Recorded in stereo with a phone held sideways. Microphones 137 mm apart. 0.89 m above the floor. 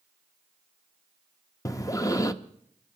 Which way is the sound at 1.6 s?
25° left (ahead or behind).